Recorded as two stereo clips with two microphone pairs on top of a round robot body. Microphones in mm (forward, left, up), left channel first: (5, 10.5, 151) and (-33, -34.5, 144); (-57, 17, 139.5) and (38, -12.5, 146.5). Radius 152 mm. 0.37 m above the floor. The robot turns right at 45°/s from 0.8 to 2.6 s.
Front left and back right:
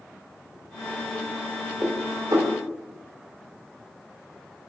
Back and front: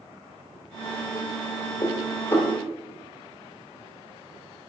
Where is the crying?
I don't hear crying.